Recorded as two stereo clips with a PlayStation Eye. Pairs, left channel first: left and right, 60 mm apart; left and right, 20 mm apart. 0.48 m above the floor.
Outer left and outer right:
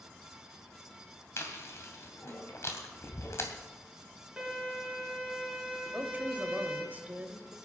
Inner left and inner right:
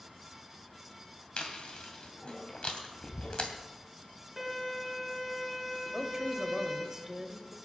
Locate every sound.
1.4 s chewing: 50° left (ahead or behind), 2.5 m
4.4 s a violin: 5° right (ahead or behind), 4.5 m
5.8 s a woman speaking: 30° right (ahead or behind), 1.7 m